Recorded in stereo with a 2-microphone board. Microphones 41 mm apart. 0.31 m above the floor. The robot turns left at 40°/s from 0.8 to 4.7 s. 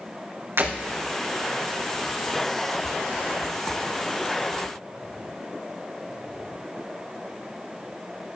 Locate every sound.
0.6 s breaking glass: 80° right, 4 m